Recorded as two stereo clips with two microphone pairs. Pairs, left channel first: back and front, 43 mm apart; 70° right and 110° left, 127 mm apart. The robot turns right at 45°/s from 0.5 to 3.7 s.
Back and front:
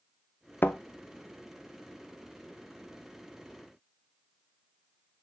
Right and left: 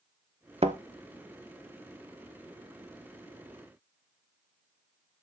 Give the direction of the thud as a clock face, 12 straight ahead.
7 o'clock.